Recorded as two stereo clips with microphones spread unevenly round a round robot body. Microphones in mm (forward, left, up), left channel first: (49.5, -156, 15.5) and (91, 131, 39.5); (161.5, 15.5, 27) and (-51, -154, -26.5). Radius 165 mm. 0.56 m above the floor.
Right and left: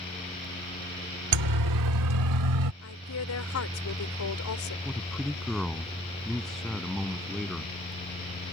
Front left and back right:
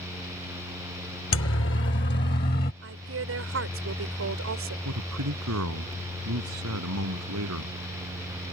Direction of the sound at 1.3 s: 90° left.